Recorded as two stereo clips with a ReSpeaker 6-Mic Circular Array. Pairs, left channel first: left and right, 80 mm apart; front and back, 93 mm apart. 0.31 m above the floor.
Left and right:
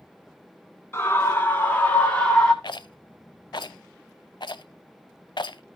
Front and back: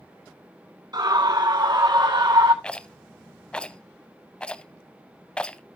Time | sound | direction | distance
0.9 | a scream | 145° left | 3.5 m
2.6 | a rattle | 80° left | 0.6 m